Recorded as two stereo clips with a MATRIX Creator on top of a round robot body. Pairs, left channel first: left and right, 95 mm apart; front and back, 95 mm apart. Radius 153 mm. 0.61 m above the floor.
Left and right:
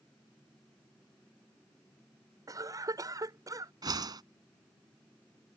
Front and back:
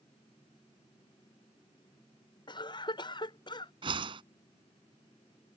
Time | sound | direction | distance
2.5 | a cough | 40° right | ?
3.8 | a whoosh | 140° right | ?